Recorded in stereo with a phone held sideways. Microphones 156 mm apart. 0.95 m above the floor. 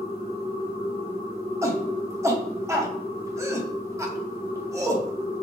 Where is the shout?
20° right (ahead or behind), 0.6 m.